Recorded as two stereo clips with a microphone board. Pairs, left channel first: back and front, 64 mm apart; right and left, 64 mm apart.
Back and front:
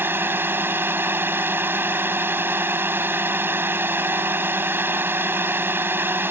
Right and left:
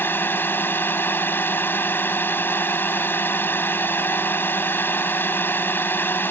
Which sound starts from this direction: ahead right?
A drone, at 0.0 s.